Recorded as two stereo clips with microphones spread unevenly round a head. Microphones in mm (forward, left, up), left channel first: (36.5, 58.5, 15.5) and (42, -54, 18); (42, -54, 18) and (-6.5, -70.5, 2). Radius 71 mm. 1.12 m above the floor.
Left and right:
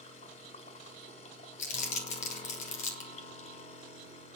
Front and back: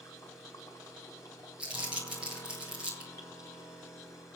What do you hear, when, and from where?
0.0 s a machine running: 75° left, 4 m
1.6 s crumpling: 125° left, 3 m